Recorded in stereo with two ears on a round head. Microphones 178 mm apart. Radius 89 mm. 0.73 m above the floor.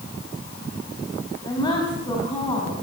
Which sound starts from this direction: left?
A woman speaking, at 1.4 s.